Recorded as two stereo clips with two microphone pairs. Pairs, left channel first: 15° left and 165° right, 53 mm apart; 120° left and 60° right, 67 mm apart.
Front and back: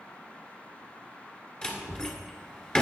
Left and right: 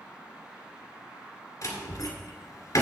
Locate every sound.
1.6 s a door slam: 90° left, 1.8 m